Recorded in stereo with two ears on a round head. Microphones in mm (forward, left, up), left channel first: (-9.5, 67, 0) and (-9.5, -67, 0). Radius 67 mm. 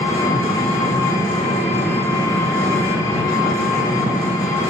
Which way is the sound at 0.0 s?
20° left (ahead or behind).